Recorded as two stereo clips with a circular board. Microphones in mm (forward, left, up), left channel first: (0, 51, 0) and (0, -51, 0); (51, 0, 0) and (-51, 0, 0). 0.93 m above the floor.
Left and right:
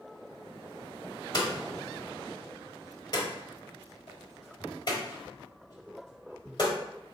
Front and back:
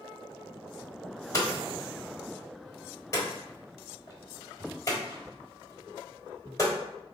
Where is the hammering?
55° left, 1.1 m.